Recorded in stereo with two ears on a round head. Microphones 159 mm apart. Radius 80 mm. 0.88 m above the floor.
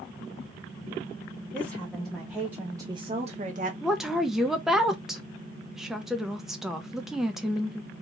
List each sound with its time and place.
1.5 s a woman speaking: 10° left (ahead or behind), 1.4 m; by 3.7 s 45° right (ahead or behind), 0.8 m
3.8 s a woman speaking: 5° right (ahead or behind), 0.5 m